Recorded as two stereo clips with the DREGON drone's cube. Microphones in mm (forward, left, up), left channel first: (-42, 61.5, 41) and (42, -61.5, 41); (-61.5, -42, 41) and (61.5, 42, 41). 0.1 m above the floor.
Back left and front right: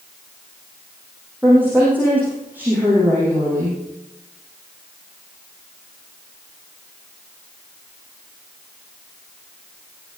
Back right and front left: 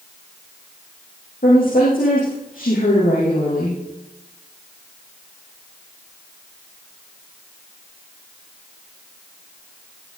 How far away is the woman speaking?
About 6 m.